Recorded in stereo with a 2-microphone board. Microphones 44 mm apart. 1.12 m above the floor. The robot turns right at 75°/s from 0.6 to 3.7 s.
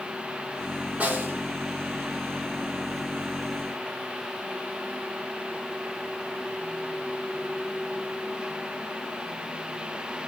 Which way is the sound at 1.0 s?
140° right.